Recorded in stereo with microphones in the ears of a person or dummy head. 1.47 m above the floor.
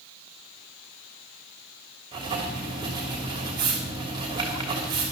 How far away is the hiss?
No hiss in this recording.